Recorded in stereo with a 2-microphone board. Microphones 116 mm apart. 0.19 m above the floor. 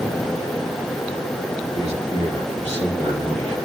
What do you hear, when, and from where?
1.7 s a man speaking: 65° right (ahead or behind), 3.5 m; by 3.6 s 70° right (ahead or behind), 5 m